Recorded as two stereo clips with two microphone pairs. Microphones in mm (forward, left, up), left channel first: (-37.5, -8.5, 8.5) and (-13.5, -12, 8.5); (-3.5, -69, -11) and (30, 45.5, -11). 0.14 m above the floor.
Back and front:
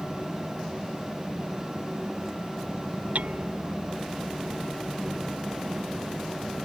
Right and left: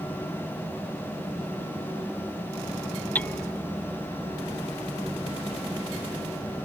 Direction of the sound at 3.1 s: 30° right.